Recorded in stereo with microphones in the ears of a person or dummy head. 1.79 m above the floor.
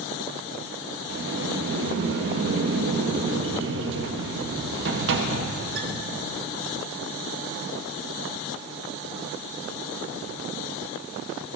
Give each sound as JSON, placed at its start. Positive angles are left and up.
{"t": 1.1, "sound": "a sliding door", "side_deg": -65, "distance_m": 1.2}